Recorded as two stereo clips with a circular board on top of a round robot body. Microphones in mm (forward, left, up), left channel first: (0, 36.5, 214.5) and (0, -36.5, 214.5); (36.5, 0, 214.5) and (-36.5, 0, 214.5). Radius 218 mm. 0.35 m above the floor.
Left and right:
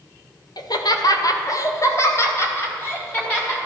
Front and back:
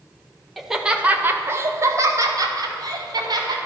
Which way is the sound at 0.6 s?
90° left.